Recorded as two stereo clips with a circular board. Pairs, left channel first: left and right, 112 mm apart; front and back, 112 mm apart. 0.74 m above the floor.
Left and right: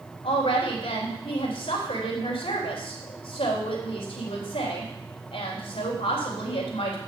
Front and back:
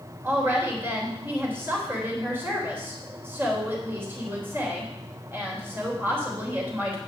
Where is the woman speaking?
110° left, 3.5 m.